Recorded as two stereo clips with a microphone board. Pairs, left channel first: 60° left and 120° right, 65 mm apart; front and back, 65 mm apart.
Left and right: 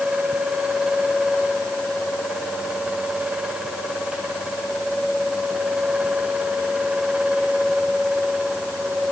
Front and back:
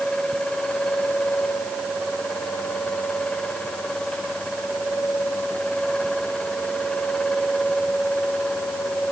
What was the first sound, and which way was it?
Only background noise.